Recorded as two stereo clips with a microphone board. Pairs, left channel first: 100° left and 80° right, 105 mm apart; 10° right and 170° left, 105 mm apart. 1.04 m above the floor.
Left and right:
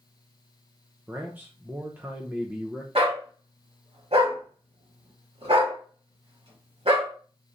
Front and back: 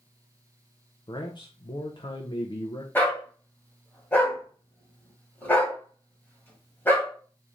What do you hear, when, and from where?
1.1 s a man speaking: 15° right, 0.6 m
3.0 s a dog barking: 85° right, 1.7 m